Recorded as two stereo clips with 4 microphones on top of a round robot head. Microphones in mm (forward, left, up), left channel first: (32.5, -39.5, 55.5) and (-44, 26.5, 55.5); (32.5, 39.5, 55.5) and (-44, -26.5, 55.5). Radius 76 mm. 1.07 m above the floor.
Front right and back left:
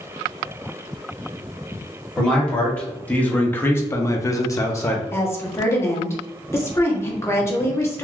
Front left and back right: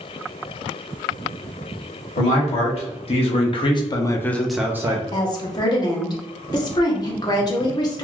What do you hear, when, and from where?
2.2 s a man speaking: 40° left, 1.4 m; by 5.0 s 95° right, 0.6 m
5.1 s a woman speaking: 15° left, 0.9 m